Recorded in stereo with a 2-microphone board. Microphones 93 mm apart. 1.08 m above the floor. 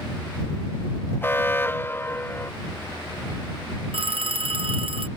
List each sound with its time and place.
1.2 s an alarm: 25° left (ahead or behind)
3.9 s a phone ringing: 75° right (ahead or behind)